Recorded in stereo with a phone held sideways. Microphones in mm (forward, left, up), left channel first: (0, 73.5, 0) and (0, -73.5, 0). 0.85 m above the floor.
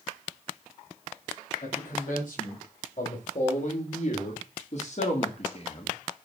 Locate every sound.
1.6 s a man speaking: 60° left (ahead or behind), 5.5 m; by 5.9 s 40° left (ahead or behind), 1.6 m